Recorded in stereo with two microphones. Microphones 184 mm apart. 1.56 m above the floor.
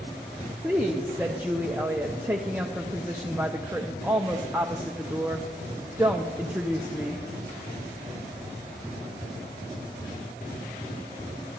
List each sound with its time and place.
0.6 s a woman speaking: 10° right (ahead or behind), 0.7 m